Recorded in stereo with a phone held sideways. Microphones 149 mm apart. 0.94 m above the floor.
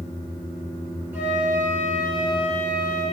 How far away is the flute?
About 7.5 m.